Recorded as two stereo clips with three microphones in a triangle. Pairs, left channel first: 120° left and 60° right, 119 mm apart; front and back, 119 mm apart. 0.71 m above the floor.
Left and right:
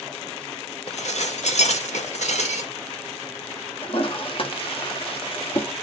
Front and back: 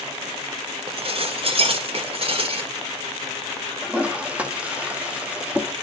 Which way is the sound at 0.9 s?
140° left.